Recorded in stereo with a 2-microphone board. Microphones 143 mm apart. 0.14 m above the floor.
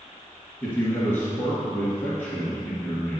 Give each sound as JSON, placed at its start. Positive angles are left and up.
{"t": 0.6, "sound": "a man speaking", "side_deg": 15, "distance_m": 2.0}